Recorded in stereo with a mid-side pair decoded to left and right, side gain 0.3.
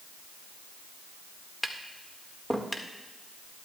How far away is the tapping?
About 1.8 m.